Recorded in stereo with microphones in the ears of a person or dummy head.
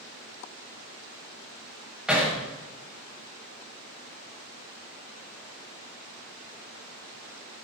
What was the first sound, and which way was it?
Hammering, centre (ahead or behind).